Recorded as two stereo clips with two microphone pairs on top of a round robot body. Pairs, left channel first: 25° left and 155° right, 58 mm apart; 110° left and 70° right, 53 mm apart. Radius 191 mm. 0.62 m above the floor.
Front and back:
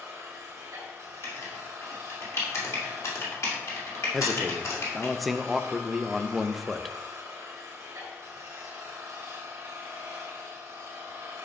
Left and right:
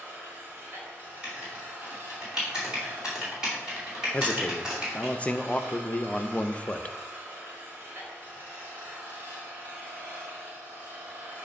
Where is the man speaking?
105° left, 0.7 m.